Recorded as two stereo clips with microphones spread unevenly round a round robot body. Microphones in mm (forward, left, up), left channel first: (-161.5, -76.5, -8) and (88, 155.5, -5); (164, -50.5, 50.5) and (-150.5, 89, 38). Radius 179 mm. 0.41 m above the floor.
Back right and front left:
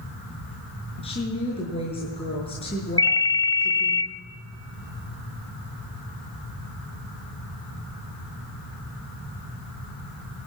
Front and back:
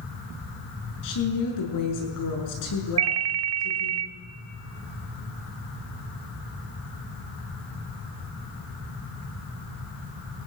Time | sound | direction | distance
1.0 | a woman speaking | 60° right | 6.5 m
3.0 | a ringtone | 145° left | 1.0 m